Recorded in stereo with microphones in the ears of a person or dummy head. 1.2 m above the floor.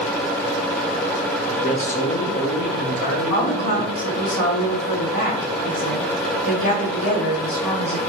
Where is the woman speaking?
55° left (ahead or behind), 2 m.